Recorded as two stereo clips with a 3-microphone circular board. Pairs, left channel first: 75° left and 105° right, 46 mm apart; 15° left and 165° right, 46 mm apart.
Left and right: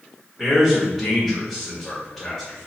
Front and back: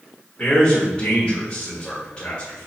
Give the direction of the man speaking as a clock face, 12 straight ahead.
1 o'clock.